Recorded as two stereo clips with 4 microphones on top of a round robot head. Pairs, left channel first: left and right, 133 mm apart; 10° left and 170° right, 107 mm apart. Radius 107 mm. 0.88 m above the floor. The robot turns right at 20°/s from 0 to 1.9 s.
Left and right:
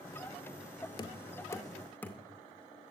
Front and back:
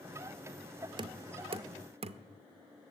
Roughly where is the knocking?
Behind left.